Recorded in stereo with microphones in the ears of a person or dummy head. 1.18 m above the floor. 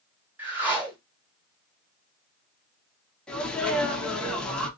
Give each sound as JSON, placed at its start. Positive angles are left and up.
{"t": 0.4, "sound": "a whoosh", "side_deg": -5, "distance_m": 0.8}
{"t": 3.3, "sound": "a sneeze", "side_deg": 5, "distance_m": 0.8}